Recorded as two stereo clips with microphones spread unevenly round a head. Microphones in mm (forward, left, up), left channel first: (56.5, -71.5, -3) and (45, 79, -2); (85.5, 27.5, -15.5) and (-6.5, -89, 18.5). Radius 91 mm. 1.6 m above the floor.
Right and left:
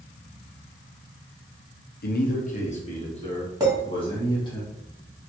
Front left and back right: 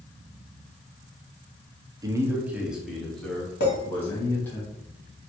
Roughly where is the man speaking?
Ahead right.